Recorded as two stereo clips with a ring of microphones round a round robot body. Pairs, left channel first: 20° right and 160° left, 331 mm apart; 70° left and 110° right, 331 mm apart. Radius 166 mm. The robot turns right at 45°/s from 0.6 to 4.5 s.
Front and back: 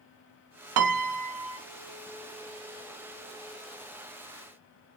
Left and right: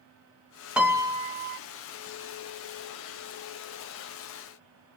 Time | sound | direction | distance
0.8 | a piano | 160° left | 0.6 m